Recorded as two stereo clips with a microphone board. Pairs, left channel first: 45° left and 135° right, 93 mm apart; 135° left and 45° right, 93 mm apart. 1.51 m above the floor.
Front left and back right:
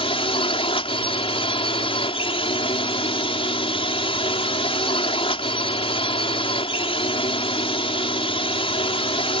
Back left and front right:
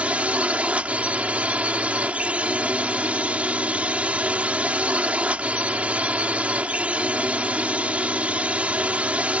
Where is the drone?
30° left.